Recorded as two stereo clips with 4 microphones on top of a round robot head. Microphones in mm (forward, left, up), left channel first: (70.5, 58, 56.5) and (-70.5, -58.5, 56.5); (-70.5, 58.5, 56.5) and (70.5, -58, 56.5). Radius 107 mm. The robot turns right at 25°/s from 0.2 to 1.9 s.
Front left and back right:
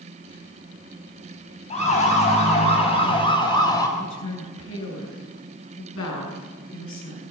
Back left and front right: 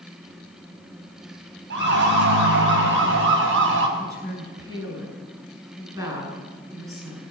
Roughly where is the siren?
Ahead.